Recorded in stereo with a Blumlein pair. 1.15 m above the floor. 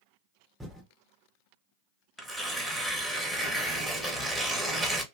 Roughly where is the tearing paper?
Ahead.